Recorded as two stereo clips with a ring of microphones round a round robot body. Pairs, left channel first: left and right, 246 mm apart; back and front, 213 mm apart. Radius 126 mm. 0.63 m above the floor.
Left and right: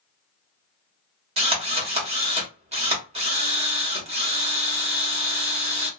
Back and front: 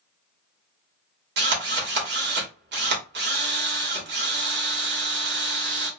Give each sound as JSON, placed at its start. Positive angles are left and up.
{"t": 1.4, "sound": "a drill", "azimuth_deg": -30, "distance_m": 1.3}